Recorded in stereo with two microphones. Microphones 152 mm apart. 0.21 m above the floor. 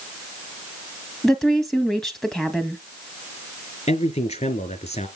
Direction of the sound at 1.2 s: 5° left (ahead or behind).